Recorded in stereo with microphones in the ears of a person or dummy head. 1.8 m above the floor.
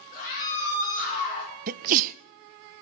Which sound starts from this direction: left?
A scream, at 0.1 s.